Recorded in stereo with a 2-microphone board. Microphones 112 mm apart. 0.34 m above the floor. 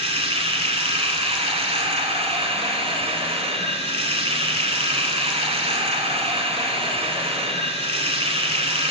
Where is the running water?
65° right (ahead or behind), 1.1 m.